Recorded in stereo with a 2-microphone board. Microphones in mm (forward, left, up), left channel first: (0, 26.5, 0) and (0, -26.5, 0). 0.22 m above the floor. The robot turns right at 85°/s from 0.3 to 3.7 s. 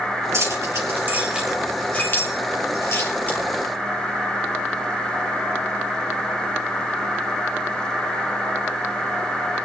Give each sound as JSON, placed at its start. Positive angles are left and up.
{"t": 0.3, "sound": "keys jangling", "side_deg": -70, "distance_m": 4.0}